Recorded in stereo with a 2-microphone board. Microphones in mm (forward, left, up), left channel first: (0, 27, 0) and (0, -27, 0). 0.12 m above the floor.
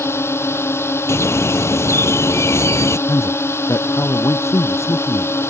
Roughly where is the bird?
Left.